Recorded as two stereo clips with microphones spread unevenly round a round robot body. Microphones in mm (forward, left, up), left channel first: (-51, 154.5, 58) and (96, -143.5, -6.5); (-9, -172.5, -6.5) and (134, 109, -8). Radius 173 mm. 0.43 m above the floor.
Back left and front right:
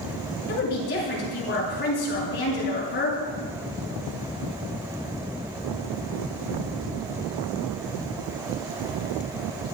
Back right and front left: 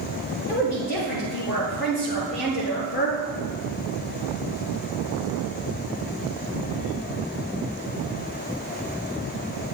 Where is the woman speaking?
Straight behind, 7 m.